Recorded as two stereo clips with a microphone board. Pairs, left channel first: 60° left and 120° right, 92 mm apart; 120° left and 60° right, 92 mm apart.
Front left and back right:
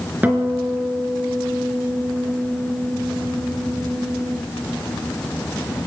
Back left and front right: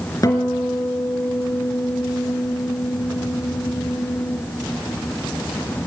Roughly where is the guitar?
Behind.